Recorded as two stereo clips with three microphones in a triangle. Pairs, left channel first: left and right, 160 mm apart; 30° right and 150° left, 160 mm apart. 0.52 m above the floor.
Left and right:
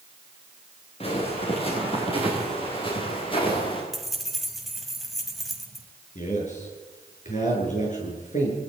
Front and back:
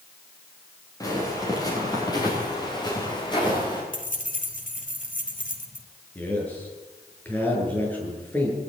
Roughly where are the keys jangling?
Ahead.